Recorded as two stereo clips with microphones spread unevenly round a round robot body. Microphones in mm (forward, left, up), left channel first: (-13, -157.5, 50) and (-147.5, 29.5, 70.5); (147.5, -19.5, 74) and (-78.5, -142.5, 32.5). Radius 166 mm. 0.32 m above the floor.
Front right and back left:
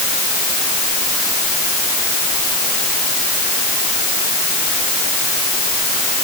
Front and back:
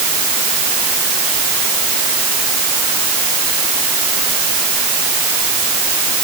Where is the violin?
I don't hear a violin.